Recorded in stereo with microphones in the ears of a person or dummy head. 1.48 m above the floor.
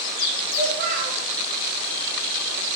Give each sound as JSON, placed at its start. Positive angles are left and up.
{"t": 0.5, "sound": "a child speaking", "side_deg": -25, "distance_m": 0.8}